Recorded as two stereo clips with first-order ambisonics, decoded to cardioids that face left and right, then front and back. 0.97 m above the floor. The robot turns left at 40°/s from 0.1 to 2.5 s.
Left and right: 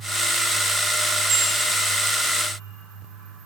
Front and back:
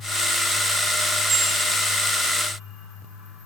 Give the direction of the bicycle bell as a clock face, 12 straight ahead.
4 o'clock.